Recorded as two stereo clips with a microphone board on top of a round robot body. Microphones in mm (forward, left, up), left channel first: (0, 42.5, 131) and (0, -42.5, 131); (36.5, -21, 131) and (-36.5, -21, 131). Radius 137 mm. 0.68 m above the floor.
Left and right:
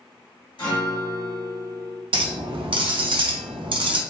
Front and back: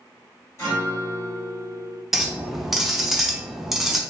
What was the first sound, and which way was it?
A guitar, 55° left.